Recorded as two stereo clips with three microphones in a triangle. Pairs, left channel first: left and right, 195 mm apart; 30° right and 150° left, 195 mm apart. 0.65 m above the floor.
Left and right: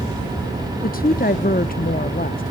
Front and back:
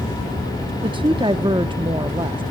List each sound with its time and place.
0.8 s a woman speaking: 95° left, 0.7 m